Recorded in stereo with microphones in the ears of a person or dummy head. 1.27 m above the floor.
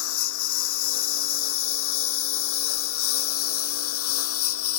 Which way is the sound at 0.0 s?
80° left.